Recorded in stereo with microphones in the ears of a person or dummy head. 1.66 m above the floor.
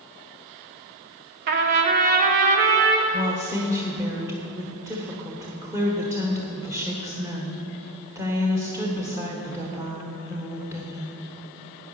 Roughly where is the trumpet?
Right.